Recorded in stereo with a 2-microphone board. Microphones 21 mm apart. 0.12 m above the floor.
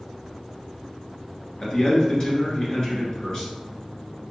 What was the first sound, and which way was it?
A man speaking, 35° left (ahead or behind).